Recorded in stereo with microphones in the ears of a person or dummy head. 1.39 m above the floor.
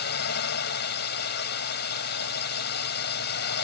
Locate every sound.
0.0 s a drone: 50° left (ahead or behind)